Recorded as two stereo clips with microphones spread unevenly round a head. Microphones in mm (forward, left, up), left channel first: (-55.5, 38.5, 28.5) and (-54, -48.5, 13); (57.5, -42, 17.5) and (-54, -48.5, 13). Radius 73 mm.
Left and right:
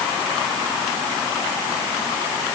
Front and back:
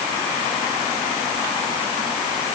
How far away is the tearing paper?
No tearing paper in this recording.